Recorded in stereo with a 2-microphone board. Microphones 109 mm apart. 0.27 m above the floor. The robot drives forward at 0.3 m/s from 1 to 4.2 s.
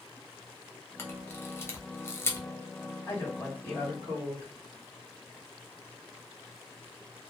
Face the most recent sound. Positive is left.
turn(degrees=20)  # may be behind; listen again after turning